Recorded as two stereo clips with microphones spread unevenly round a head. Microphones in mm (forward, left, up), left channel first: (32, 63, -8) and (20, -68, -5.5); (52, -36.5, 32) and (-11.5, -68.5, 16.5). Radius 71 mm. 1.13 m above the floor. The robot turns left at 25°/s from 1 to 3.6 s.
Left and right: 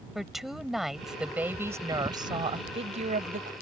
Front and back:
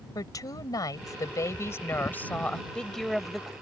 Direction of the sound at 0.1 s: 5° right.